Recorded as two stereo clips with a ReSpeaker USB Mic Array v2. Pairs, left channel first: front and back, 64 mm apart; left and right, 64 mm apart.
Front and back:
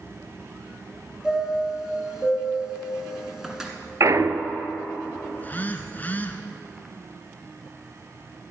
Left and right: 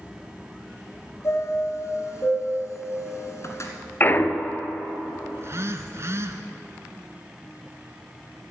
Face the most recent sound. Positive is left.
turn(degrees=-55)